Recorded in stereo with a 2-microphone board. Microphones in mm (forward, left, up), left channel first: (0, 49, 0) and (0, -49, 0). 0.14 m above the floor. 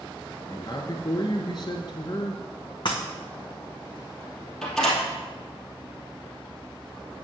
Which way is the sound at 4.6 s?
5° left (ahead or behind).